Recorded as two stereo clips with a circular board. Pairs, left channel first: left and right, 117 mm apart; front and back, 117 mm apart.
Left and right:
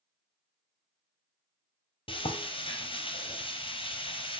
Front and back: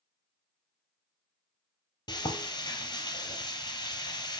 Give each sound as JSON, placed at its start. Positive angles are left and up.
{"t": 2.1, "sound": "frying", "azimuth_deg": 50, "distance_m": 0.7}